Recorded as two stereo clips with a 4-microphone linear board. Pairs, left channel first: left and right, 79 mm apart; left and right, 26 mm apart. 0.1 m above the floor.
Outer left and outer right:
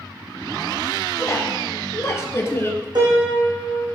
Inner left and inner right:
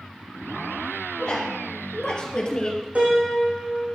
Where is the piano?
65° right (ahead or behind), 5.5 m.